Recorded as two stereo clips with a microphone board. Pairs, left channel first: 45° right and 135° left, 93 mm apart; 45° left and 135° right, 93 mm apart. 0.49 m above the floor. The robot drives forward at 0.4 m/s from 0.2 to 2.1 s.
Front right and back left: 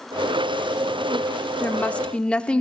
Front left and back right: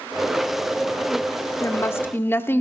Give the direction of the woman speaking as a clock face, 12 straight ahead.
12 o'clock.